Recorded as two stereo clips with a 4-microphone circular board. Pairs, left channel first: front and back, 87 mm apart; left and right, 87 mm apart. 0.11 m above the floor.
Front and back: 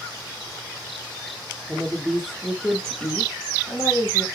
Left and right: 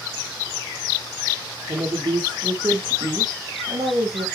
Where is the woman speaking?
105° right, 2 m; by 4.3 s 60° right, 2.5 m.